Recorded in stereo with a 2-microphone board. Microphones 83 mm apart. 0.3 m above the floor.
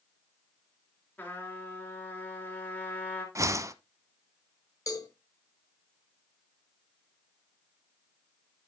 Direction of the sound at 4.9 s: 45° left (ahead or behind).